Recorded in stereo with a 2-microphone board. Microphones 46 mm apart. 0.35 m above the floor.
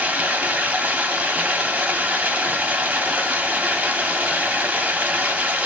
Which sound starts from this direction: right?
Running water, at 0.0 s.